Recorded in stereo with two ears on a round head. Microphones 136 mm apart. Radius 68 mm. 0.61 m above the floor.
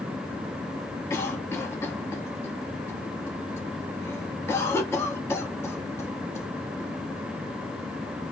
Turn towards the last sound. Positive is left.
turn(degrees=15)  # may be behind; listen again after turning